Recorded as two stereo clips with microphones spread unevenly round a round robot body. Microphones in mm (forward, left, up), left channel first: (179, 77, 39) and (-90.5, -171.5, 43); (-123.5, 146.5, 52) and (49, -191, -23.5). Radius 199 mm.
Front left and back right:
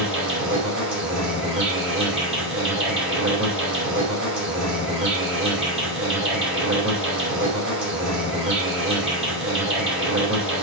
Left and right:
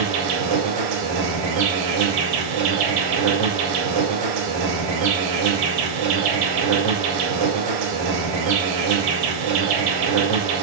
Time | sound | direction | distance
0.0 | an insect | 80° right | 5 m